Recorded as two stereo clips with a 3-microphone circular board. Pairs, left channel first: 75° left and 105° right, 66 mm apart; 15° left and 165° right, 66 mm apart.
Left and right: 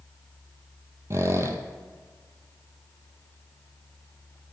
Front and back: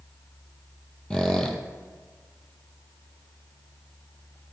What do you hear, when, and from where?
1.1 s a squeak: 60° right, 0.8 m